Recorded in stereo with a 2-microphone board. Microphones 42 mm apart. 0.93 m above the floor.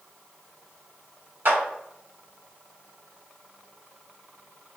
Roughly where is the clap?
Right.